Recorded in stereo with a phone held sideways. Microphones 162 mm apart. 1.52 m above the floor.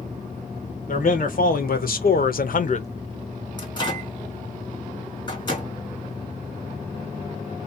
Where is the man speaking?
65° left (ahead or behind), 1.3 m; by 2.9 s 45° left (ahead or behind), 0.5 m.